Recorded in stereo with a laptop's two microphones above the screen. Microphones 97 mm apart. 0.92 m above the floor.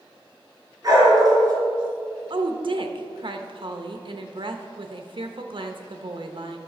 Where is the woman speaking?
60° right (ahead or behind), 0.8 m.